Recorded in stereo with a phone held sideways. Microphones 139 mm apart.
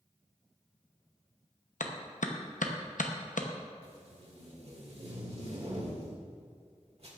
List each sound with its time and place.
1.8 s a clap: 75° left (ahead or behind), 0.9 m
3.8 s tape being pulled: 50° right (ahead or behind), 1.9 m